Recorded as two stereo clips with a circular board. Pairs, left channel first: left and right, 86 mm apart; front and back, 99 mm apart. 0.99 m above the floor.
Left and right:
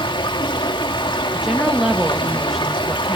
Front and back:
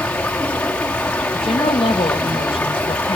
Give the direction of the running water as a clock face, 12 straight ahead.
9 o'clock.